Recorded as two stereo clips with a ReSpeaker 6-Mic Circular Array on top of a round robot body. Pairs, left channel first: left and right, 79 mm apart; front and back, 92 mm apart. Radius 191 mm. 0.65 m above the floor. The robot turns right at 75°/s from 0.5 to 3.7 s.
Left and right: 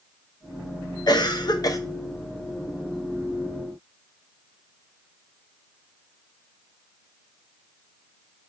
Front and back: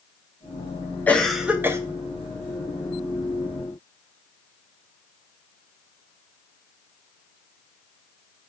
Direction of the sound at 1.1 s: 70° left.